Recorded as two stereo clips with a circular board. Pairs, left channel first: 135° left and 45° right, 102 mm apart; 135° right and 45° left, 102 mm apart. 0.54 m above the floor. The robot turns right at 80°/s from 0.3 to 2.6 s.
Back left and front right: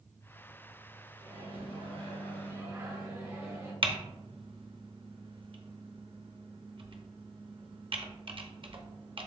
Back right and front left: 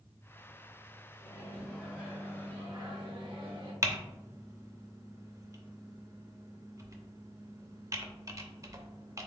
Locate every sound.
1.2 s a microwave: 100° right, 1.5 m; by 3.7 s 10° left, 1.5 m
3.8 s typing on a keyboard: 15° right, 0.6 m